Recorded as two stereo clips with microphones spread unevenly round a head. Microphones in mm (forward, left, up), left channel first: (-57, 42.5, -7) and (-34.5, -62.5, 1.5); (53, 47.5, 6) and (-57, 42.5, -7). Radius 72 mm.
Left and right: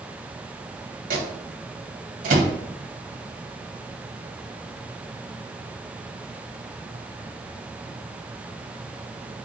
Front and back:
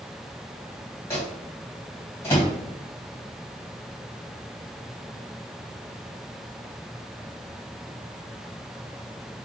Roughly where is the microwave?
Right.